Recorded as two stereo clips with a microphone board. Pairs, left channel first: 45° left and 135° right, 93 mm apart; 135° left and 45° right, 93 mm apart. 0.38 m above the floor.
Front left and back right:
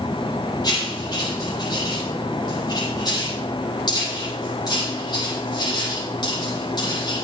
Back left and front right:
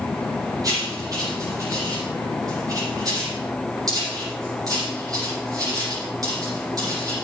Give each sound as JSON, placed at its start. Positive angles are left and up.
{"t": 0.6, "sound": "writing", "azimuth_deg": 5, "distance_m": 9.0}